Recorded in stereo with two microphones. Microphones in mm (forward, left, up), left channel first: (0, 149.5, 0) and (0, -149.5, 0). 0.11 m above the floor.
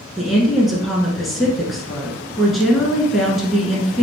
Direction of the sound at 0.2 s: Centre (ahead or behind).